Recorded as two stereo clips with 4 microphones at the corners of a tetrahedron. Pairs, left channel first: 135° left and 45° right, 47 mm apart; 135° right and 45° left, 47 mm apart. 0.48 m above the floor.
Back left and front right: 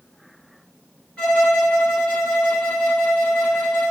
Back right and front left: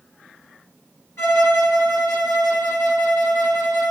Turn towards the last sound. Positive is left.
turn(degrees=-160)